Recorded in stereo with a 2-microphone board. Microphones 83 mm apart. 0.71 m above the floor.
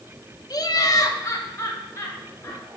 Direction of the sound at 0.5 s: 45° left (ahead or behind).